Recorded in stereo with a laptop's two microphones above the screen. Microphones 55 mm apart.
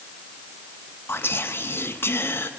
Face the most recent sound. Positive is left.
turn(degrees=45)  # may be behind; listen again after turning